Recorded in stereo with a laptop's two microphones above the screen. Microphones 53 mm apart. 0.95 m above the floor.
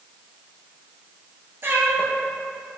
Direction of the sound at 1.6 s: 45° right (ahead or behind).